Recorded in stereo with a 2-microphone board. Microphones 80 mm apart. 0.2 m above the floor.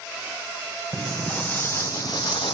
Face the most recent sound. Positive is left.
turn(degrees=75)  # may be behind; listen again after turning